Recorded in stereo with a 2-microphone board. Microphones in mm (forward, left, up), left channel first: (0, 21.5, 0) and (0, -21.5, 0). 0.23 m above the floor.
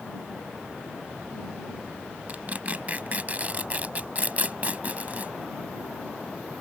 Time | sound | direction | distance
2.3 | tearing paper | 35° right (ahead or behind) | ?